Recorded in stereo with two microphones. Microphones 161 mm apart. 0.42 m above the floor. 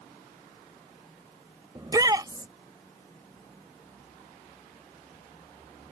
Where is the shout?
25° right (ahead or behind).